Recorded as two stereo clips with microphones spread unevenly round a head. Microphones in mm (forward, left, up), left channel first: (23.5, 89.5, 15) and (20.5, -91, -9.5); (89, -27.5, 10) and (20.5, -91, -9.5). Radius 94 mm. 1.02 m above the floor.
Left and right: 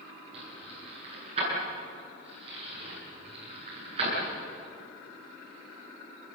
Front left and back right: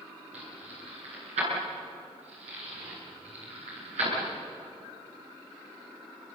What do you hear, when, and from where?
0.3 s keys jangling: 155° right, 9.5 m